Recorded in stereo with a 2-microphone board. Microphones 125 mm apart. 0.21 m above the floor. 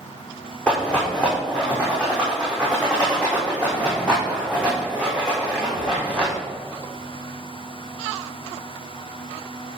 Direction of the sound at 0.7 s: 10° left (ahead or behind).